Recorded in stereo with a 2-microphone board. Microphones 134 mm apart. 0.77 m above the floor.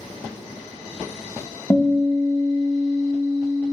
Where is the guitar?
15° left (ahead or behind), 0.7 m.